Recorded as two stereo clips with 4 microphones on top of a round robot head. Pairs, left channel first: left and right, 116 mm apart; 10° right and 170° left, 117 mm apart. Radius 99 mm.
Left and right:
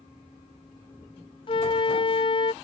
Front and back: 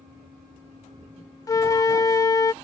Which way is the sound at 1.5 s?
50° left.